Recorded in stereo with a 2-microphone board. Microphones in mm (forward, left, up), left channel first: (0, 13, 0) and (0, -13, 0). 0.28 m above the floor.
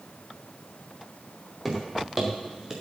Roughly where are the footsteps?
Centre.